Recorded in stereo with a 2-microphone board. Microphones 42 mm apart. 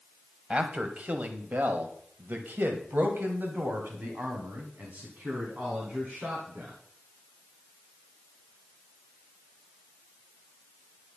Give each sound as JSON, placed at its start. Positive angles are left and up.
{"t": 0.5, "sound": "a man speaking", "side_deg": -25, "distance_m": 1.8}